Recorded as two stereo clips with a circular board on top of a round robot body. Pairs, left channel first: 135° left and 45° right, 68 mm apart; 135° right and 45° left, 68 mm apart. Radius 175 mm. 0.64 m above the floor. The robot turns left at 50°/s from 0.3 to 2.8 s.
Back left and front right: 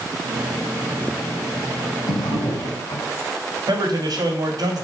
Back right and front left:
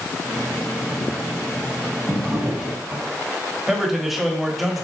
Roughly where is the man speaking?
Ahead right.